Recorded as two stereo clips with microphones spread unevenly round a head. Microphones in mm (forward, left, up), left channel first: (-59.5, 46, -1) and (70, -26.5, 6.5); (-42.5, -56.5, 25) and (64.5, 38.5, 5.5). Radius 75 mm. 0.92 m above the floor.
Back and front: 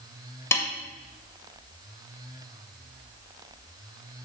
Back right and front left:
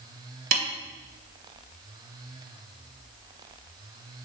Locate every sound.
0.5 s a snare drum: 75° left, 2 m